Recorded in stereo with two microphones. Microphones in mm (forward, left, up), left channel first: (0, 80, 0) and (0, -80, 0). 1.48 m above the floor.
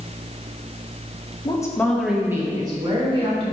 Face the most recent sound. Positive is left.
turn(degrees=-40)  # may be behind; listen again after turning